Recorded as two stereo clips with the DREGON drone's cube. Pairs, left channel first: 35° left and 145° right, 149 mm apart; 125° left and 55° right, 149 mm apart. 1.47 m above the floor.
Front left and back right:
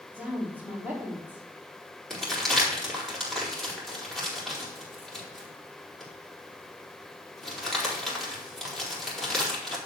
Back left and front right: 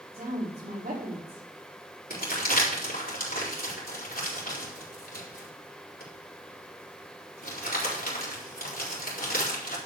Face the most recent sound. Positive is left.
turn(degrees=125)